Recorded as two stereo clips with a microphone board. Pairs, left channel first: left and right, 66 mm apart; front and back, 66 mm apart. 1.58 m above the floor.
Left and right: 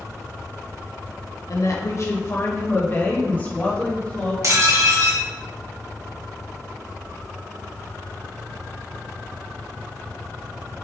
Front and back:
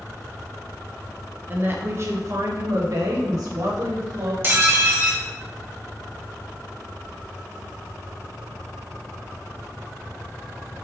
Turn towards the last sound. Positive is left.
turn(degrees=-125)